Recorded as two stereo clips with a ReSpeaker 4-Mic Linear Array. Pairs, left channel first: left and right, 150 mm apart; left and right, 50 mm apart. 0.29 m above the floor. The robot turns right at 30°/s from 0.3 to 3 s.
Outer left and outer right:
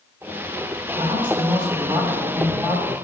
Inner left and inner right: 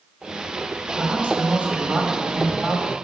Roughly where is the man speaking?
Ahead right.